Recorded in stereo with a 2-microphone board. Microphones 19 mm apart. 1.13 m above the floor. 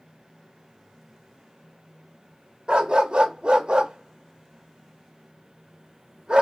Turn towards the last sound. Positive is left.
turn(degrees=-55)  # may be behind; listen again after turning